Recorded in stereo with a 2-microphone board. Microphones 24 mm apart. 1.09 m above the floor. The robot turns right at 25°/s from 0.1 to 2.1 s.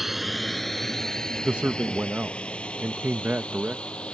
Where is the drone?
10° right (ahead or behind); by 4.2 s 40° left (ahead or behind).